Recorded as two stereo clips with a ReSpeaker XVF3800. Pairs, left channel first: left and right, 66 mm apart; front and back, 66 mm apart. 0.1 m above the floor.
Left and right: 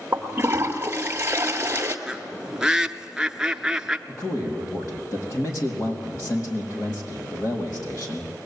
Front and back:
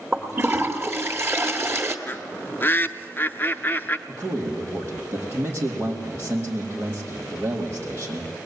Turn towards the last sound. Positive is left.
turn(degrees=130)